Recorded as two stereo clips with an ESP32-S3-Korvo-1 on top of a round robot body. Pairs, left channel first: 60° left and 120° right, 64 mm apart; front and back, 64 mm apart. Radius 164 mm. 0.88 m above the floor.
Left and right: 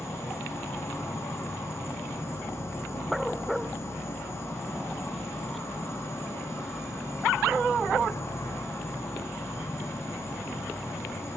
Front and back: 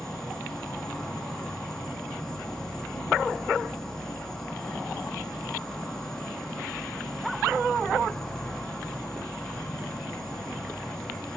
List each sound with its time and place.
0.0 s an insect: 75° left, 0.9 m